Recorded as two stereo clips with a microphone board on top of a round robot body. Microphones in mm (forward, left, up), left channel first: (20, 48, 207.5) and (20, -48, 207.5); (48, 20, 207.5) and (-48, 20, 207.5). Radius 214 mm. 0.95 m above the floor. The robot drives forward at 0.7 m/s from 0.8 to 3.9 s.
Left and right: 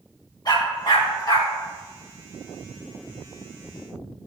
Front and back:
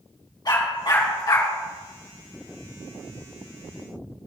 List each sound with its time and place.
0.5 s a dog barking: 45° left, 4 m; by 1.5 s 50° left, 3.5 m